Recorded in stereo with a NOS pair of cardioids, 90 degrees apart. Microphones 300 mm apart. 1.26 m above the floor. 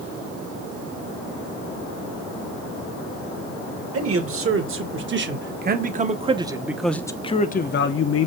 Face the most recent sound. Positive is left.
turn(degrees=55)